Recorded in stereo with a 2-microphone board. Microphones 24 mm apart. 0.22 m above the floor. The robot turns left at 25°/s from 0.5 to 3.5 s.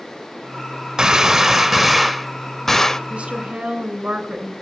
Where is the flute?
No flute in this recording.